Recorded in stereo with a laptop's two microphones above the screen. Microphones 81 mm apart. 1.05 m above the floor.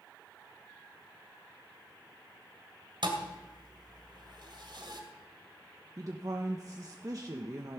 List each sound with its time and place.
3.0 s a thud: 70° right (ahead or behind), 2.0 m
6.0 s a woman speaking: 45° right (ahead or behind), 0.8 m